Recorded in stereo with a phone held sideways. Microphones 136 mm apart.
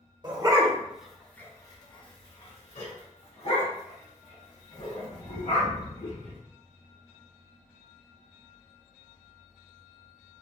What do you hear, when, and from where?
0.2 s a dog barking: 30° right (ahead or behind), 0.8 m; by 6.4 s 70° left (ahead or behind), 3 m